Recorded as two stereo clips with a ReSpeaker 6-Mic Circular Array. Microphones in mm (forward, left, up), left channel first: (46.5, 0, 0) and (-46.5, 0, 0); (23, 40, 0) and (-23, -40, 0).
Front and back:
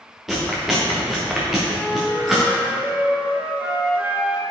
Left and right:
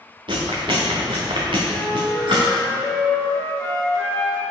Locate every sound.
0.3 s chewing: 90° right, 2 m
1.7 s a flute: 130° left, 1.8 m